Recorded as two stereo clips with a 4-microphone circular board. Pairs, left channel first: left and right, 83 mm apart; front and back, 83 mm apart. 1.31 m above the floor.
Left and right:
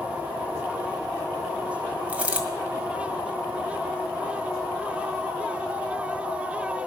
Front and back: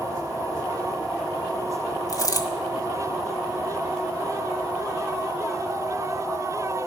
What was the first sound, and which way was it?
A dropped coin, 20° right.